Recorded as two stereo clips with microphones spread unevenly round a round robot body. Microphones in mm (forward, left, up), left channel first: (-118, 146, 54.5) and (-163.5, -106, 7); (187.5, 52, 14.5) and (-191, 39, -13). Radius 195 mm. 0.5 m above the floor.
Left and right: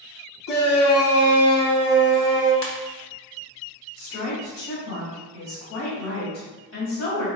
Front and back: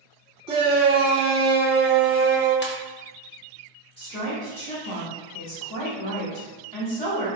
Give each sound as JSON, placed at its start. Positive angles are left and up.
{"t": 0.5, "sound": "a shout", "azimuth_deg": 110, "distance_m": 1.1}
{"t": 2.6, "sound": "a ringtone", "azimuth_deg": 65, "distance_m": 1.0}
{"t": 4.0, "sound": "a woman speaking", "azimuth_deg": 65, "distance_m": 1.8}